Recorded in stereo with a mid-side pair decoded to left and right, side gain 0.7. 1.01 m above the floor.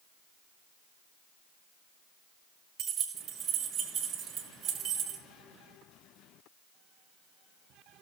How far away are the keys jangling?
About 1.5 m.